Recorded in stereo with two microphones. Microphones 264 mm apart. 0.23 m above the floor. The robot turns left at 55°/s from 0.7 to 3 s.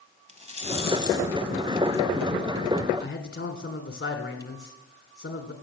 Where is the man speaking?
50° left (ahead or behind), 2 m.